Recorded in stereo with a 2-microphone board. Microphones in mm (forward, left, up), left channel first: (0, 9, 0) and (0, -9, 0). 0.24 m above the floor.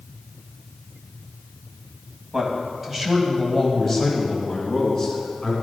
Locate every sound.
2.3 s a man speaking: 20° right (ahead or behind), 1.5 m; by 5.5 s 10° left (ahead or behind), 2 m